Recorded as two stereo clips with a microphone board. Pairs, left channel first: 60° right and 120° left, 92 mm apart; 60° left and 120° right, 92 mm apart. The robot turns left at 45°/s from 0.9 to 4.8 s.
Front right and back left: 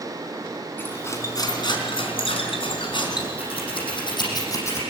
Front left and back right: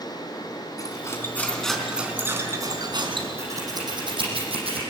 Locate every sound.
0.8 s cutlery clinking: 5° left, 4 m; by 3.3 s 100° right, 4 m
3.4 s scissors: 60° right, 7 m; by 4.8 s 125° right, 7 m